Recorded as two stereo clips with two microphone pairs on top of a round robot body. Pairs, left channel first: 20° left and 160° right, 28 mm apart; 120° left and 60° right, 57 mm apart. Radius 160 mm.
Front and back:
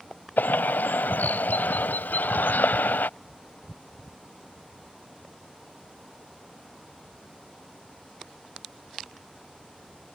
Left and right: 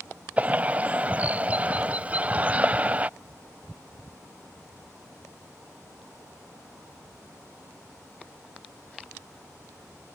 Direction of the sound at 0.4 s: 5° left.